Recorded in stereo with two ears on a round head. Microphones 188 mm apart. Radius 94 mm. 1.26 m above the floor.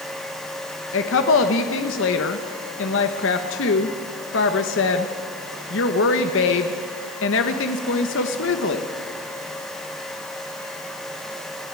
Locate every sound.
0.9 s a woman speaking: 65° left (ahead or behind), 1.1 m